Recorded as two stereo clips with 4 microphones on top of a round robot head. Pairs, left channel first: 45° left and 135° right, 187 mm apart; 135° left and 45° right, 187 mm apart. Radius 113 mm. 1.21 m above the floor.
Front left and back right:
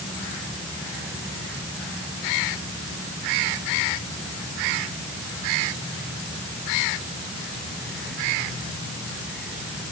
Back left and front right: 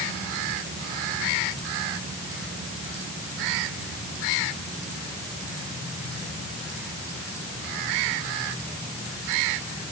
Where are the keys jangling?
No keys jangling in this recording.